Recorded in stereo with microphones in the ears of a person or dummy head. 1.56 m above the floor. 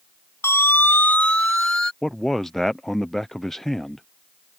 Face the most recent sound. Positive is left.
turn(degrees=0)  # may be behind; listen again after turning